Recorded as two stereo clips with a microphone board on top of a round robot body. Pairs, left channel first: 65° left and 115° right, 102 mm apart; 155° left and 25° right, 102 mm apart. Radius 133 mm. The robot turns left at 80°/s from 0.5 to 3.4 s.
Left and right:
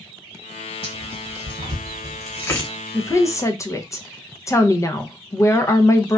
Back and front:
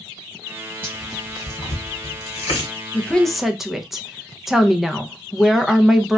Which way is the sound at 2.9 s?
100° left.